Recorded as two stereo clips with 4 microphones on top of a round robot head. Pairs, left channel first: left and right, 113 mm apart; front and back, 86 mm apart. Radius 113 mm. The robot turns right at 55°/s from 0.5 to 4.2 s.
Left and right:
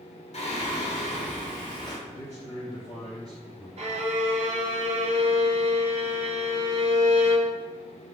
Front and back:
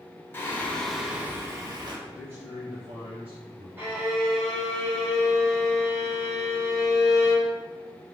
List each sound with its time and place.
0.3 s singing: 65° left, 1.1 m; by 2.0 s 145° left, 1.1 m
2.1 s a man speaking: 105° left, 1.6 m; by 3.7 s 170° right, 1.6 m
3.8 s a violin: 110° right, 0.9 m; by 7.5 s 90° right, 0.9 m